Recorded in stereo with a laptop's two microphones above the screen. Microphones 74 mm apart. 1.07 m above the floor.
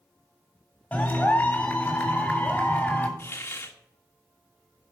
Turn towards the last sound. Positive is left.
turn(degrees=35)  # may be behind; listen again after turning